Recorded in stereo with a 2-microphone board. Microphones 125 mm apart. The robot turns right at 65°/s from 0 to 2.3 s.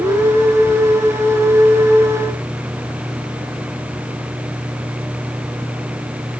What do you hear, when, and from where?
Only background noise.